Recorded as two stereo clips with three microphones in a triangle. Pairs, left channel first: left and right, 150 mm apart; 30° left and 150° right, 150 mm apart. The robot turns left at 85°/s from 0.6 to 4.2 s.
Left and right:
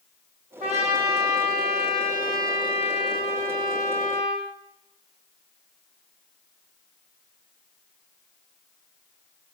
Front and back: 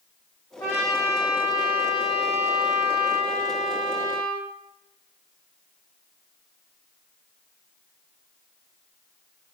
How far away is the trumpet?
About 3 m.